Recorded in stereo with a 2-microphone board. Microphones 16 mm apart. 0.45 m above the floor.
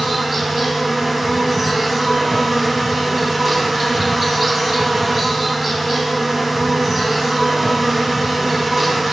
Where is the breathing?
No breathing in this recording.